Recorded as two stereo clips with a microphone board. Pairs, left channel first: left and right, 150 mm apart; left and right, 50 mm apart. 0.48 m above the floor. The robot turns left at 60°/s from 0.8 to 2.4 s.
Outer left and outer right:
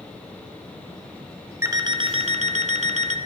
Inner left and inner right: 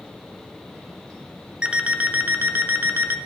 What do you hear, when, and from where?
1.6 s an alarm clock: 20° right, 0.6 m; by 3.2 s 70° right, 0.6 m